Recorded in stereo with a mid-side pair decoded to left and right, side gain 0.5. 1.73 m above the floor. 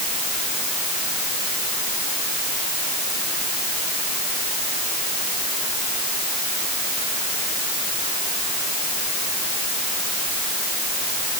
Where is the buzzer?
I don't hear a buzzer.